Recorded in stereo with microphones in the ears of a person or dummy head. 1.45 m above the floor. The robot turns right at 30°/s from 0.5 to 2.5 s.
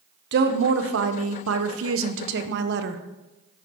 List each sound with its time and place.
0.3 s a woman speaking: 125° right, 1.1 m; by 3.0 s 65° right, 1.1 m